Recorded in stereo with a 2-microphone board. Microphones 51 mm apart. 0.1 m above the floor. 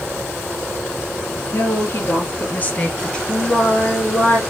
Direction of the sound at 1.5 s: 60° left (ahead or behind).